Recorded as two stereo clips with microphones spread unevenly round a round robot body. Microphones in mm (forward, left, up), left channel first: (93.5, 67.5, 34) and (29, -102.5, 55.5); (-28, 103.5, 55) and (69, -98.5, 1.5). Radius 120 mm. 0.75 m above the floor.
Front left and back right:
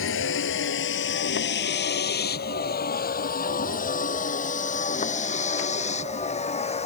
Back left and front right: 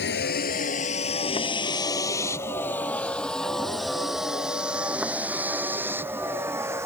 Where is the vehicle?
75° left; by 6.9 s 15° left.